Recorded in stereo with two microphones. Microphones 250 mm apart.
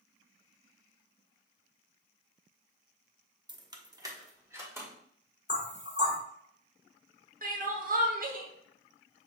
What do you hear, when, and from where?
3.5 s keys jangling: 15° right (ahead or behind), 0.5 m; by 4.9 s 10° right (ahead or behind), 1.3 m
5.5 s knocking: 45° left (ahead or behind), 1.4 m
7.4 s crying: 35° right (ahead or behind), 0.7 m